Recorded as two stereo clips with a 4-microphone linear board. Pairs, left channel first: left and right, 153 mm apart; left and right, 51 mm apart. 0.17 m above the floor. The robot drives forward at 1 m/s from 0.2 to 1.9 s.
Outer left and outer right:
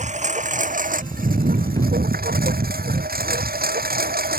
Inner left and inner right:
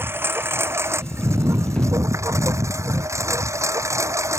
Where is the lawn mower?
50° right (ahead or behind); by 4.4 s 80° right.